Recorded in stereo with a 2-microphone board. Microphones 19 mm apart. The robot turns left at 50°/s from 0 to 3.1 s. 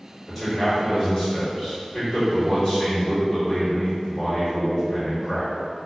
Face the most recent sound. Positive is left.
turn(degrees=40)